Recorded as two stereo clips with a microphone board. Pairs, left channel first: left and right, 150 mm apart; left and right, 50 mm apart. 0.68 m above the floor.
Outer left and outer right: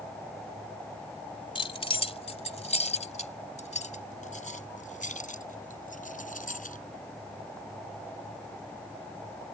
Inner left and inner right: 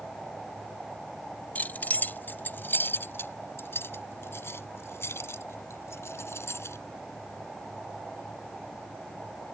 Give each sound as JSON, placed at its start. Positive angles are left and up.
{"t": 1.6, "sound": "keys jangling", "side_deg": 35}